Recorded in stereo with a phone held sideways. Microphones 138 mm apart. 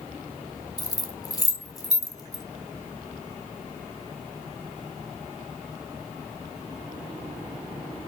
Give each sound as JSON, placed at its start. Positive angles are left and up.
{"t": 0.8, "sound": "keys jangling", "side_deg": 25, "distance_m": 1.0}